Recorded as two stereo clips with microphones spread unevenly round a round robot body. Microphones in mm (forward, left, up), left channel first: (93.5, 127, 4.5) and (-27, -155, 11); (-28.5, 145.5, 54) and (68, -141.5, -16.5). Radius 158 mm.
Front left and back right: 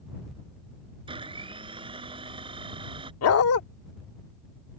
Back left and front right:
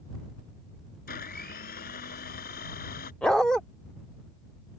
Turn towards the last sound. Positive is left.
turn(degrees=25)